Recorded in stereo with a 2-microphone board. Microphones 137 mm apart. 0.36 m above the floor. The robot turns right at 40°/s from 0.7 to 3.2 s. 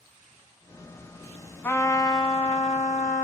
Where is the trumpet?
15° left, 0.7 m; by 3.2 s 75° left, 0.7 m.